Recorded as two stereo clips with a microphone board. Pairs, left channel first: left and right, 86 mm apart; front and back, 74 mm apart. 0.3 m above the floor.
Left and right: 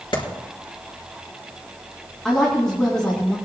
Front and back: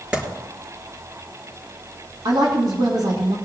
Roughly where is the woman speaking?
Behind.